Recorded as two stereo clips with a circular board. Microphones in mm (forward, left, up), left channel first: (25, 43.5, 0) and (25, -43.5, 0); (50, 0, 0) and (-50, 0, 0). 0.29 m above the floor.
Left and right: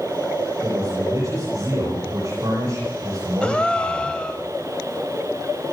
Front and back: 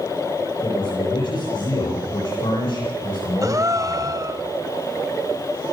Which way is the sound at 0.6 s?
35° right.